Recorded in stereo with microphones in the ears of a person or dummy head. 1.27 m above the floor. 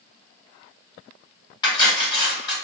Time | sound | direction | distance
1.6 | cutlery clinking | 30° left (ahead or behind) | 1.2 m